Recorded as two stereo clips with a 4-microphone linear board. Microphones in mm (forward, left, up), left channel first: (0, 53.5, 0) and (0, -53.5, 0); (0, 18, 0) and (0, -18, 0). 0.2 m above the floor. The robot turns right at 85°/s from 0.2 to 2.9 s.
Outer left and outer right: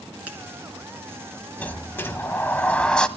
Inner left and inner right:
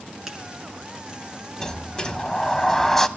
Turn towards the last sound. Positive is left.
turn(degrees=10)  # may be behind; listen again after turning